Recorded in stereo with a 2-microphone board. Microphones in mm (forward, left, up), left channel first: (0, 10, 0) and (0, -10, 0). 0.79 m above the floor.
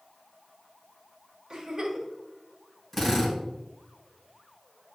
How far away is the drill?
About 3.5 m.